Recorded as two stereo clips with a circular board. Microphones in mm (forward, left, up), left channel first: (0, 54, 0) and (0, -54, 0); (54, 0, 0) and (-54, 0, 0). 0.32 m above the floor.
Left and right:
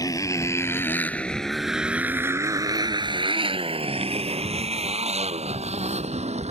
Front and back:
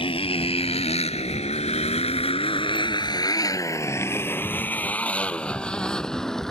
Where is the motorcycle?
35° left; by 6.5 s 85° right.